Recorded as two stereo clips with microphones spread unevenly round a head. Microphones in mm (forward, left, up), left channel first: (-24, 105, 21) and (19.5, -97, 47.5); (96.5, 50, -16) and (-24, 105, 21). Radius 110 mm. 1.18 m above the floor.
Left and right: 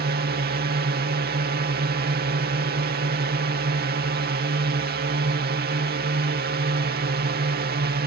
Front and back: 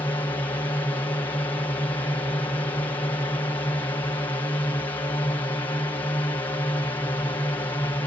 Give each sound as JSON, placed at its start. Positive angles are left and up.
{"t": 0.0, "sound": "a drone", "azimuth_deg": -75}